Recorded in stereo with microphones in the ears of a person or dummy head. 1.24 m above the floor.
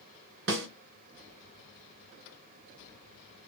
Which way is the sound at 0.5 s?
65° right (ahead or behind).